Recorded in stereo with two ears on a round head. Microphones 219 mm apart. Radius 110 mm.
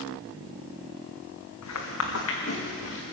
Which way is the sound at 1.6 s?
70° left (ahead or behind).